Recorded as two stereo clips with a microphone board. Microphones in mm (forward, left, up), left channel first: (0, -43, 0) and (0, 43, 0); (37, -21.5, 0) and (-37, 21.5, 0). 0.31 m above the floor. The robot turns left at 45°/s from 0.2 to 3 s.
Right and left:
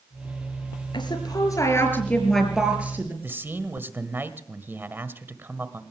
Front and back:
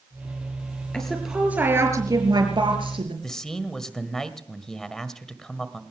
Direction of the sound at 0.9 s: 110° right.